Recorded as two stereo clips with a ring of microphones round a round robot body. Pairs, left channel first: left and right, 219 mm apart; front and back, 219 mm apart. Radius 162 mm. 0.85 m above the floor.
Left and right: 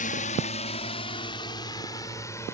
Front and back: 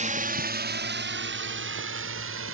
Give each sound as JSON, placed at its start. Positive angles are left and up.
{"t": 0.0, "sound": "a drone", "azimuth_deg": 135}